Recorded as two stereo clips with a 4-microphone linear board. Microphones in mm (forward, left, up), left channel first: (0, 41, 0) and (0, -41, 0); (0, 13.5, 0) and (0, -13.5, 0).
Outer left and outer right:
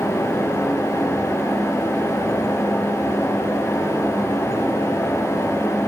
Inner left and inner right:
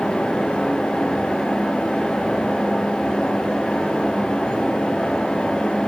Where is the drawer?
I don't hear a drawer.